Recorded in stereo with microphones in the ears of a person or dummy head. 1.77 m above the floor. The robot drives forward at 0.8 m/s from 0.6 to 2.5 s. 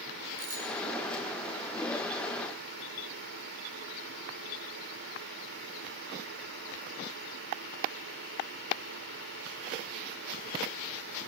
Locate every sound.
0.4 s a bicycle bell: 50° right (ahead or behind), 7 m